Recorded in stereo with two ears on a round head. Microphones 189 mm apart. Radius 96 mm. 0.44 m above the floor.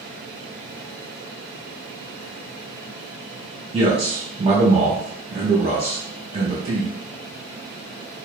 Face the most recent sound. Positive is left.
turn(degrees=-30)  # may be behind; listen again after turning